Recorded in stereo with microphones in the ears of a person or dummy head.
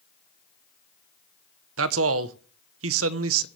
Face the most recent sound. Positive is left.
turn(degrees=-75)  # may be behind; listen again after turning